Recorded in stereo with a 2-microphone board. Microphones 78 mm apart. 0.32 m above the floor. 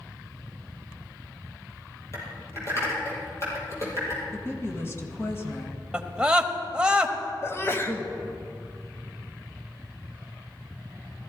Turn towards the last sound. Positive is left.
turn(degrees=35)  # may be behind; listen again after turning